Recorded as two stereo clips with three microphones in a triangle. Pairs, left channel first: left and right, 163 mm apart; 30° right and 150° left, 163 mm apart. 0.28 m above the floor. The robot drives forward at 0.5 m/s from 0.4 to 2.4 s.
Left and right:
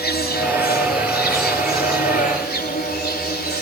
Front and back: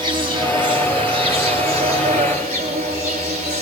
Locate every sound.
0.0 s an insect: 90° left, 4 m; by 3.6 s 105° left, 4 m